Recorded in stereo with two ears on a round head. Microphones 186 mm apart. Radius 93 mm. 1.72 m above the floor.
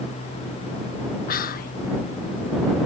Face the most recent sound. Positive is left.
turn(degrees=40)  # may be behind; listen again after turning